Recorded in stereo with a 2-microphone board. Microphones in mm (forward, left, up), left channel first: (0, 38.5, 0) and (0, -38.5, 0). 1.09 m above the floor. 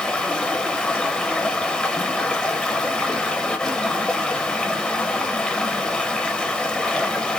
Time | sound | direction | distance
0.0 | running water | 15° left (ahead or behind) | 0.7 m